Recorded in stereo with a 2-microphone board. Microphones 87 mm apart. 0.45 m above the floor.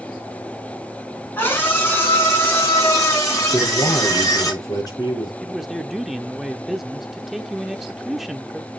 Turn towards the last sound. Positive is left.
turn(degrees=-5)  # may be behind; listen again after turning